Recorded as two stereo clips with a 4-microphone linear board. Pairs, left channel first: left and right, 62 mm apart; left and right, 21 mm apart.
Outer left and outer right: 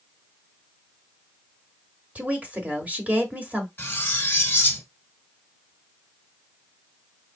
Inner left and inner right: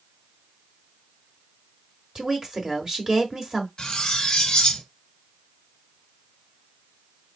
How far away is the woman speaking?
About 1.1 m.